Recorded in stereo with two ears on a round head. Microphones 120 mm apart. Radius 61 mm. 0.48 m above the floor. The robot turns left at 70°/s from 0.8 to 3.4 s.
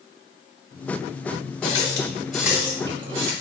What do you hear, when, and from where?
1.6 s a running tap: 40° left (ahead or behind), 1.1 m; by 3.3 s 55° right (ahead or behind), 1.1 m